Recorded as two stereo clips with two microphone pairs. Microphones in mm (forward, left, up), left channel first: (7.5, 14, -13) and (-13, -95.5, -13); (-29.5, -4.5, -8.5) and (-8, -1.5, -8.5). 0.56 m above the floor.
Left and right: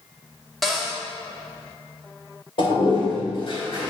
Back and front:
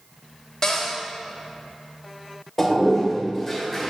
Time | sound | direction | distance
0.6 | a cupboard door | 175° left | 1.2 m
2.6 | a toilet flushing | 110° left | 2 m